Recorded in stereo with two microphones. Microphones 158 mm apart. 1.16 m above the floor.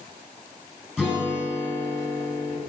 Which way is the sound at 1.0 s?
5° right (ahead or behind).